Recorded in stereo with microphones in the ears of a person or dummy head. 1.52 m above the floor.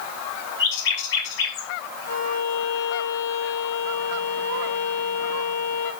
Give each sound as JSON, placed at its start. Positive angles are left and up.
{"t": 0.6, "sound": "a bird", "side_deg": 70, "distance_m": 3.0}
{"t": 2.1, "sound": "a violin", "side_deg": 55, "distance_m": 1.9}